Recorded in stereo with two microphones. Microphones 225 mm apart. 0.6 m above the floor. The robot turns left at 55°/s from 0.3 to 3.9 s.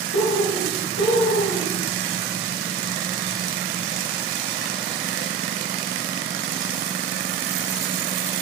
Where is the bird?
110° left, 0.7 m; by 1.8 s 30° left, 0.7 m.